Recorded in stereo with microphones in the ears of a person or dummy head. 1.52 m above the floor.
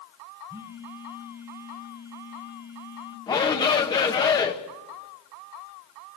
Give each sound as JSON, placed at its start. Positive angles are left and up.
{"t": 0.5, "sound": "a phone buzzing", "side_deg": -15, "distance_m": 1.6}
{"t": 3.3, "sound": "a shout", "side_deg": 20, "distance_m": 1.6}